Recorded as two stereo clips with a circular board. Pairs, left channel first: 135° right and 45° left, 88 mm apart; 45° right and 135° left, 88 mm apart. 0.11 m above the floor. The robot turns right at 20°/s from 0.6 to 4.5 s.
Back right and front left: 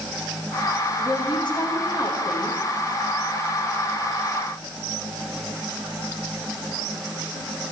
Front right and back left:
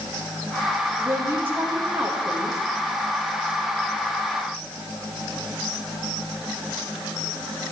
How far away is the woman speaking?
About 5 m.